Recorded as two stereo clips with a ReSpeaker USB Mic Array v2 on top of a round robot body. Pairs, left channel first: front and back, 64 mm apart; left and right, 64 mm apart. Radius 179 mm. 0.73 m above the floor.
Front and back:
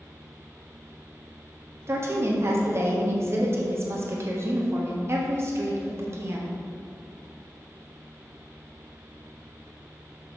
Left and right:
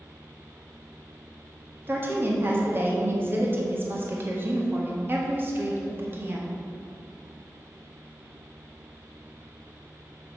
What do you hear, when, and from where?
1.9 s a woman speaking: 140° right, 1.7 m